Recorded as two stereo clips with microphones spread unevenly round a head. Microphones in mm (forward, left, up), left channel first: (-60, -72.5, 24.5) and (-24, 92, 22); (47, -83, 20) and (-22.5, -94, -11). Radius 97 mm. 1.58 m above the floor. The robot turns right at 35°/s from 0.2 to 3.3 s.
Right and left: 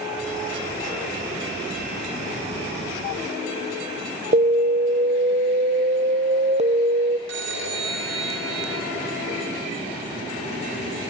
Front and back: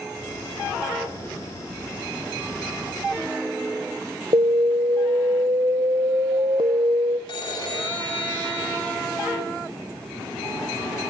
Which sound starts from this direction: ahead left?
A phone ringing, at 7.3 s.